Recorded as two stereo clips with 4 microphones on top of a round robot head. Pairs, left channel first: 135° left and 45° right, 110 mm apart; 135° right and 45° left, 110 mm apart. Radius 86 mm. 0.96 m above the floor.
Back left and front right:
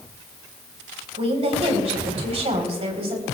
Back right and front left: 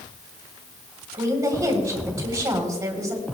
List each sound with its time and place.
1.1 s a woman speaking: 15° right, 3.5 m